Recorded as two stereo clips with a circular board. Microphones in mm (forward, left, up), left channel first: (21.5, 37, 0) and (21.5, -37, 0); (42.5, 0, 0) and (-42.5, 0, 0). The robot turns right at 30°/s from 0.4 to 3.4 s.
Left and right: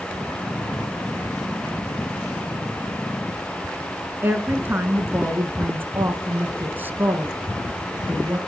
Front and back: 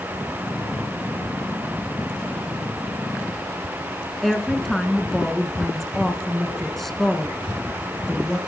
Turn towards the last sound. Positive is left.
turn(degrees=-85)